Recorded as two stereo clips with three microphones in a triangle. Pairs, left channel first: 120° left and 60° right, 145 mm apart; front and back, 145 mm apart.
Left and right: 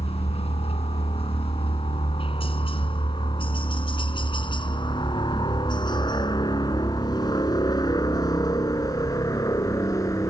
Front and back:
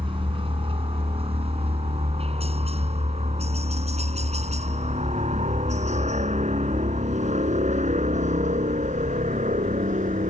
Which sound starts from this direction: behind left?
A helicopter, at 0.0 s.